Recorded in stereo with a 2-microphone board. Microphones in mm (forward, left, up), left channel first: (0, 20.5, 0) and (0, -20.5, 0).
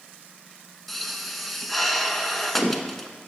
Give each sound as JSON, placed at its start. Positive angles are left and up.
{"t": 0.9, "sound": "a pop", "side_deg": 0, "distance_m": 0.8}